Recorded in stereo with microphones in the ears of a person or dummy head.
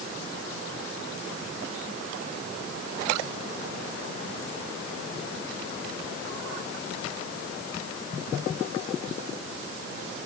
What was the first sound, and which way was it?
Only background noise.